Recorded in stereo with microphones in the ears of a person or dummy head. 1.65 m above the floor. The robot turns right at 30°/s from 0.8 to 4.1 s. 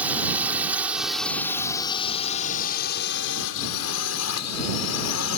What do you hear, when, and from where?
0.0 s a drone: 10° right (ahead or behind); by 5.4 s 80° left